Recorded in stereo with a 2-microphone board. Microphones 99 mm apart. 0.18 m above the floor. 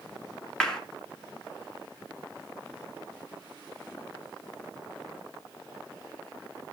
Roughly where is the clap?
Centre.